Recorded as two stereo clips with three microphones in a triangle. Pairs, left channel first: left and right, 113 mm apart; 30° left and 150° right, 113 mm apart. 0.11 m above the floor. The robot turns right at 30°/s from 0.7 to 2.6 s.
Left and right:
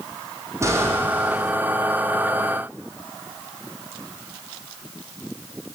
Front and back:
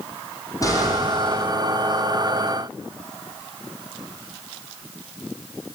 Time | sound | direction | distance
0.6 | an explosion | 25° right | 5 m